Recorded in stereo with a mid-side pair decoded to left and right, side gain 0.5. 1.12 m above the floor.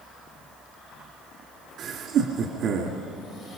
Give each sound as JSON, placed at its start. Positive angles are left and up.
{"t": 1.8, "sound": "laughter", "azimuth_deg": -65, "distance_m": 2.5}